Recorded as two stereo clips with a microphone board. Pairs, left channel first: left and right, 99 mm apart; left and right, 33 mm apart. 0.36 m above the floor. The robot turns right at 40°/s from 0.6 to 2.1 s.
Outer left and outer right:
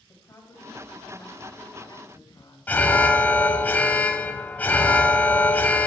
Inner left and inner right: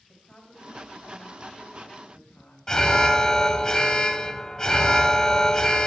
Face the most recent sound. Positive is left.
turn(degrees=15)  # may be behind; listen again after turning